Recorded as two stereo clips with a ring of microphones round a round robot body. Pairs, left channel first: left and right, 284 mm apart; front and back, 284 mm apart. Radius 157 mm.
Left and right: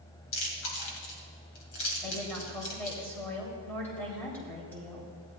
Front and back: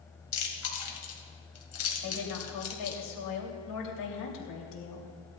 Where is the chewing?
35° left, 2 m.